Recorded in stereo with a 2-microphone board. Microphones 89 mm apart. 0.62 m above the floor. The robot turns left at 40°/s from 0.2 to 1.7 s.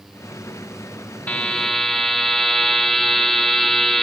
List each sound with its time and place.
1.3 s a buzzer: 15° left (ahead or behind), 1.1 m; by 4.0 s 5° left (ahead or behind), 1.1 m